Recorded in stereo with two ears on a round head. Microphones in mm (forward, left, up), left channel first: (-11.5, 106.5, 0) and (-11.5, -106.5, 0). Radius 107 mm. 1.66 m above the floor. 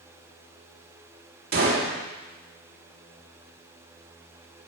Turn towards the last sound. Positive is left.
turn(degrees=-45)  # may be behind; listen again after turning